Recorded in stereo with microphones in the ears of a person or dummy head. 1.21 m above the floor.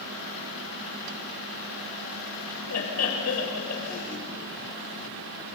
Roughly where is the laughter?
Left.